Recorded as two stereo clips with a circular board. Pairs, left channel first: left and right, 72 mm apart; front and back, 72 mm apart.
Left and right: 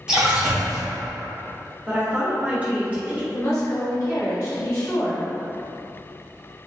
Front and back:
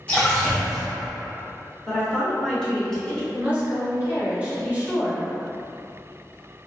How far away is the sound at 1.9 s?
About 0.8 m.